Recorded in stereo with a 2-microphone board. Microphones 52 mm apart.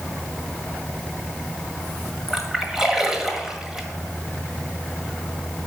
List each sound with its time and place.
2.3 s a splash: 5° right (ahead or behind), 1.5 m